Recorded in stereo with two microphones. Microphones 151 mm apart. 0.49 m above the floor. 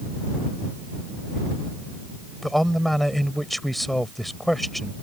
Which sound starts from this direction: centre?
A man speaking, at 2.4 s.